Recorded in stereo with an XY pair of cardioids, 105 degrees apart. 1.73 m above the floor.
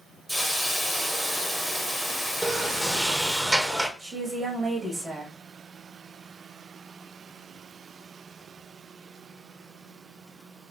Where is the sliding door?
20° right, 0.7 m.